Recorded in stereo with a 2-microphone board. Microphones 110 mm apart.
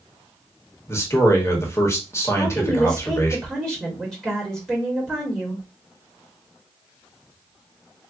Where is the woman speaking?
Centre (ahead or behind), 1.1 m.